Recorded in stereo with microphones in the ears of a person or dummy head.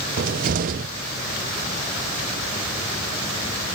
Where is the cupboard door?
50° right (ahead or behind).